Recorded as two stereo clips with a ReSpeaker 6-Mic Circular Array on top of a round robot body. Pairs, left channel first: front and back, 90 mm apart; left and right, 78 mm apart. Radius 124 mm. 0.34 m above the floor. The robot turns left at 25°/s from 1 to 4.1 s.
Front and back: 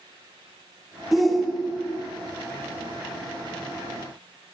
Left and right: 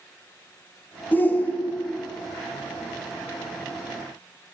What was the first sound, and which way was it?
A shout, 95° left.